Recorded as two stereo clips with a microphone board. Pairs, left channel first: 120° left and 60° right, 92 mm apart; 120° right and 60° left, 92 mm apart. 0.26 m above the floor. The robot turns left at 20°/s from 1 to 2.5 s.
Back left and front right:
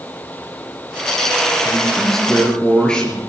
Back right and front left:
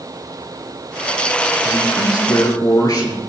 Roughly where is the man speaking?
Behind right.